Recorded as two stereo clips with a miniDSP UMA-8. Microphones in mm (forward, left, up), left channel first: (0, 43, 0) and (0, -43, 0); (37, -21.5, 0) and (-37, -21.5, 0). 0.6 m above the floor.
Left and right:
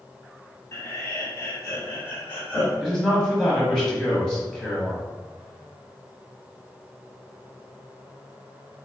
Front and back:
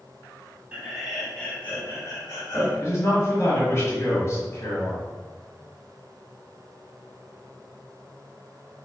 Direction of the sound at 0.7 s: 120° left.